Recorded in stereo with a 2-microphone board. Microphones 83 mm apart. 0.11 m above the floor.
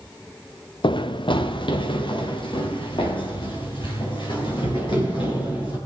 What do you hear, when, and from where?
0.8 s running footsteps: 75° left (ahead or behind), 0.5 m; by 5.8 s 80° left, 6 m